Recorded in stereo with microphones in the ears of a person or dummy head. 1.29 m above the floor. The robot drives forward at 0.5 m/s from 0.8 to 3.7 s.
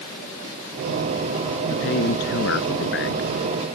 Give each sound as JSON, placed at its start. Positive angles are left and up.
{"t": 1.7, "sound": "a man speaking", "side_deg": 65}